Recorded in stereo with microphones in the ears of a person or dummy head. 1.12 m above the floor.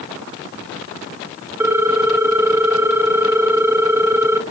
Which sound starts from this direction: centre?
A ringtone, at 1.6 s.